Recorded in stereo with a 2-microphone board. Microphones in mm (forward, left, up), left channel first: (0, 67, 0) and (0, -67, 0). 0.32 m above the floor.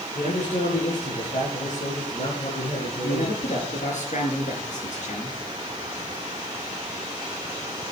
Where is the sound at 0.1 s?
65° left (ahead or behind), 8 m.